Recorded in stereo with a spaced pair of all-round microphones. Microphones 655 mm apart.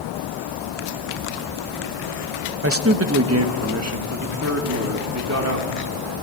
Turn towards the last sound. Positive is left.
turn(degrees=-25)  # may be behind; listen again after turning